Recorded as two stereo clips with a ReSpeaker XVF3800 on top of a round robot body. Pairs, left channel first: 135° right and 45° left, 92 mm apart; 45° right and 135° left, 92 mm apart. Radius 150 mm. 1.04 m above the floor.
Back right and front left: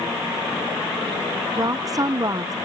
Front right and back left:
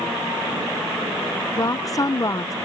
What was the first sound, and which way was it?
A woman speaking, straight ahead.